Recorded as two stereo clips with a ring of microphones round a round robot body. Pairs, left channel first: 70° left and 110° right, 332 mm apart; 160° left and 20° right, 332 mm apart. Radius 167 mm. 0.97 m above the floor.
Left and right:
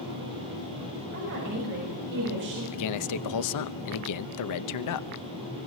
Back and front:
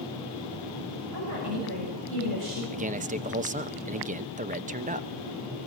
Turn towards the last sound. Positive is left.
turn(degrees=45)